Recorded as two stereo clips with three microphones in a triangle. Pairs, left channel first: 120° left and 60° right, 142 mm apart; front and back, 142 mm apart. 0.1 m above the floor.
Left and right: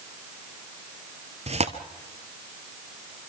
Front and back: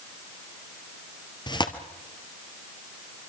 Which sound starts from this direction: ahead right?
Tearing paper, at 1.5 s.